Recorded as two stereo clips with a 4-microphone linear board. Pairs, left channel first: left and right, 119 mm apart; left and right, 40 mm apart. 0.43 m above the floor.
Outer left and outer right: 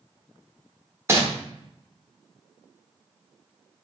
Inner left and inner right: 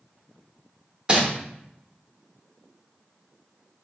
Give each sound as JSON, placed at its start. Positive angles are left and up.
{"t": 1.1, "sound": "crumpling", "side_deg": -25, "distance_m": 0.8}